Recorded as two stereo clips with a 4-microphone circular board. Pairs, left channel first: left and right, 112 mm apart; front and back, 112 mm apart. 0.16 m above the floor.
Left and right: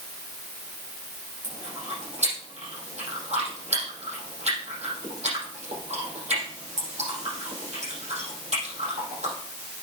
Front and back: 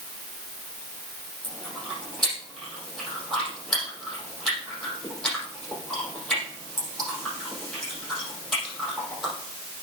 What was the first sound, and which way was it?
Chewing, 90° right.